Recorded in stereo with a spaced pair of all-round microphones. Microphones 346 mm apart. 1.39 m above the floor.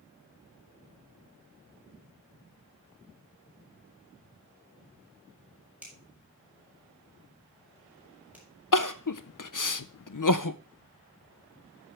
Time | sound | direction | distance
5.8 | a finger snap | 5° right (ahead or behind) | 5.5 m
8.7 | crying | 60° left (ahead or behind) | 0.6 m